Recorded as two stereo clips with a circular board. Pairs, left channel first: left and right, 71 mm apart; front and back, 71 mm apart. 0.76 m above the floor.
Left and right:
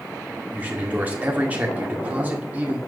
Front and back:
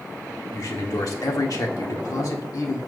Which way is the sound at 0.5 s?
25° right.